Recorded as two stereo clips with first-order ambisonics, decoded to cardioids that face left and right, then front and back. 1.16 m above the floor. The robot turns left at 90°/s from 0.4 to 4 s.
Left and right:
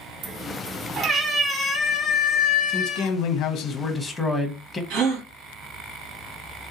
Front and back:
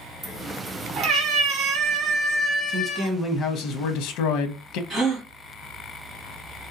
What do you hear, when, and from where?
0.2 s a cat meowing: 95° right, 1.0 m; by 3.1 s 20° left, 1.0 m
2.7 s a man speaking: 125° left, 0.7 m; by 4.8 s 5° left, 0.7 m
4.9 s a gasp: 115° right, 1.3 m